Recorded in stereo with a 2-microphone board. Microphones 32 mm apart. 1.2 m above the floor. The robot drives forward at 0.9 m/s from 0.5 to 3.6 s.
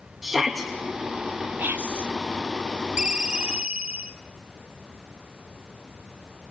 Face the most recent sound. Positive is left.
turn(degrees=-40)  # may be behind; listen again after turning